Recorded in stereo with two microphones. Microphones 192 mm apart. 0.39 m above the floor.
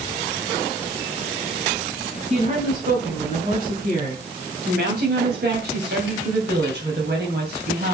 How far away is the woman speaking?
About 3.5 m.